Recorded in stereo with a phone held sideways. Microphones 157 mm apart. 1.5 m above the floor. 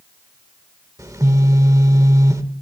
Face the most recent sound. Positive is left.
turn(degrees=-20)  # may be behind; listen again after turning